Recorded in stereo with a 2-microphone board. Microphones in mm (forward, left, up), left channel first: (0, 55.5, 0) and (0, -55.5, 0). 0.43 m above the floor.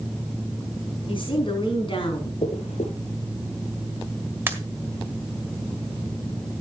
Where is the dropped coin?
90° left, 3 m.